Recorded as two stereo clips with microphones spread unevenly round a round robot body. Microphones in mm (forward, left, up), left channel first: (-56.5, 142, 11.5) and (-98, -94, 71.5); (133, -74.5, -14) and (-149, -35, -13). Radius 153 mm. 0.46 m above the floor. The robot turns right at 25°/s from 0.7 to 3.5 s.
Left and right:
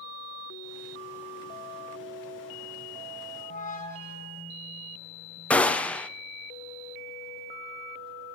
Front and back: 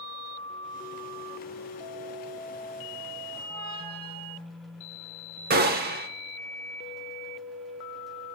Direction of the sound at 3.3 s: 130° left.